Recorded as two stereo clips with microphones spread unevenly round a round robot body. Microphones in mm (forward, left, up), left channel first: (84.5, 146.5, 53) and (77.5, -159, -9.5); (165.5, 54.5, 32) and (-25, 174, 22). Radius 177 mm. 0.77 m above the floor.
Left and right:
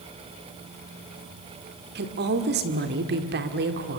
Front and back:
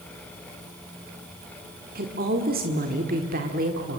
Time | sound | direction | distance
1.9 | a woman speaking | 150° right | 1.5 m